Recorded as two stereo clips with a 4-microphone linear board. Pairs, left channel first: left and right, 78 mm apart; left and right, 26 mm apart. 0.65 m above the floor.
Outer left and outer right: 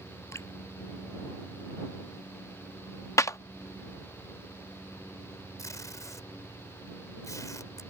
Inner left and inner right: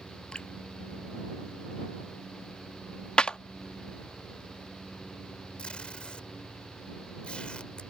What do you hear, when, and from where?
0.3 s dripping: 40° left (ahead or behind)
3.2 s a clap: 40° left (ahead or behind)
5.6 s tape being pulled: 45° left (ahead or behind)